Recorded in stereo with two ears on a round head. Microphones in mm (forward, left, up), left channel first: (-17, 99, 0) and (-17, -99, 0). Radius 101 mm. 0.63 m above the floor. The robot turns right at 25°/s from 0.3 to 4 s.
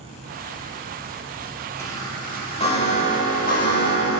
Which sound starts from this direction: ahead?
A chime, at 1.8 s.